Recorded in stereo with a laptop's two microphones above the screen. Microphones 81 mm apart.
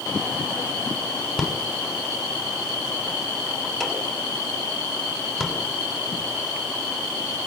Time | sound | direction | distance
1.4 | a rattle | 5° right (ahead or behind) | 6.5 m